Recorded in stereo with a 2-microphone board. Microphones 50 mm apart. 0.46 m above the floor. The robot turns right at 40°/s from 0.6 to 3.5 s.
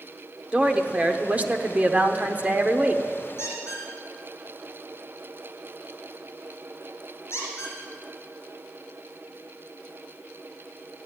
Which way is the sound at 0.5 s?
140° right.